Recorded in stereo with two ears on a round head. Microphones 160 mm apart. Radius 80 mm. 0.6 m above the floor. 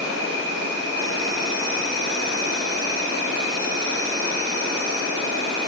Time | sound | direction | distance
0.0 | an insect | 65° right (ahead or behind) | 2.5 m